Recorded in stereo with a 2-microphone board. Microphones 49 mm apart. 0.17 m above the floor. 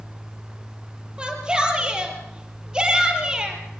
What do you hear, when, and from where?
1.2 s a shout: 20° right (ahead or behind), 4 m